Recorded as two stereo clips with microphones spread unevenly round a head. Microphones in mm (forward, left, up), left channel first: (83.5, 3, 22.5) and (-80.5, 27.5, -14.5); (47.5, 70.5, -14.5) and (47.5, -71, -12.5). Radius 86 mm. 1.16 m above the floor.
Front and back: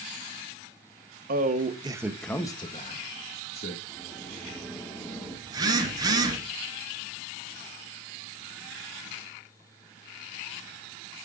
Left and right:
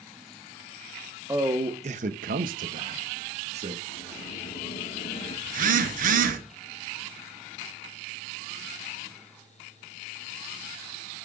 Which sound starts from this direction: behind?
A man speaking, at 1.3 s.